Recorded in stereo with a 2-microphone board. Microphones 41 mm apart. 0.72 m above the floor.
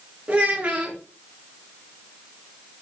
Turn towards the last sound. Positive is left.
turn(degrees=-30)  # may be behind; listen again after turning